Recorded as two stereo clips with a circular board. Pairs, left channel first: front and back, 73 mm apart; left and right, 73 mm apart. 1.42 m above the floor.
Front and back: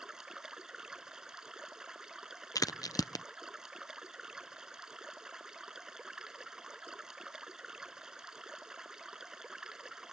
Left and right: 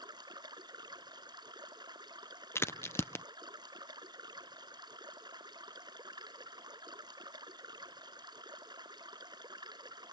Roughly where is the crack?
Ahead left.